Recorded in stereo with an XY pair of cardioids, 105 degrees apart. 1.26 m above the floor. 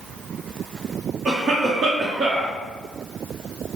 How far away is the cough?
About 1.1 m.